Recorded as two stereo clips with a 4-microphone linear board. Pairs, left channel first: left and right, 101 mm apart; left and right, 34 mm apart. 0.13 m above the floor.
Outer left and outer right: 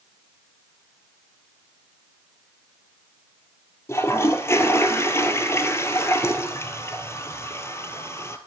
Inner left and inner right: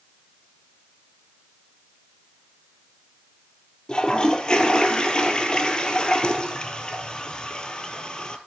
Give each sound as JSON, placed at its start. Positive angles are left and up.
{"t": 3.9, "sound": "a toilet flushing", "side_deg": 25, "distance_m": 0.7}